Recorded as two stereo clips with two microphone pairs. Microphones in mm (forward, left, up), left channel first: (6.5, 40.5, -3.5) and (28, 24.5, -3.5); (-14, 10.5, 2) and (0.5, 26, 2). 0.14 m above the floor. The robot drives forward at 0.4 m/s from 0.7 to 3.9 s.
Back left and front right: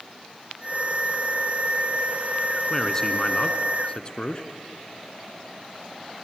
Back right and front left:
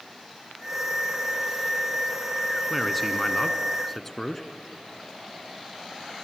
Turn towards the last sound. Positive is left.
turn(degrees=155)